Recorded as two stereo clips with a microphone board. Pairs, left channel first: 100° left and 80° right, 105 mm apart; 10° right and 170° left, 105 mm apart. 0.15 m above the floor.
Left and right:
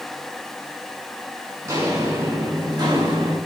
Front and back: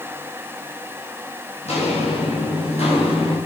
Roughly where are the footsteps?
Ahead.